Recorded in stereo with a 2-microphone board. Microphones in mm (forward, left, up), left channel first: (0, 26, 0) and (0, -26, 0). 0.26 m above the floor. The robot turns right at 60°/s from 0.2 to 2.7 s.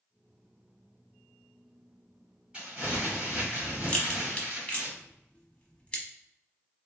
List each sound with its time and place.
2.5 s crumpling: 20° right (ahead or behind), 1.5 m; by 4.9 s 10° right (ahead or behind), 1.5 m
3.9 s a crack: 25° left (ahead or behind), 0.8 m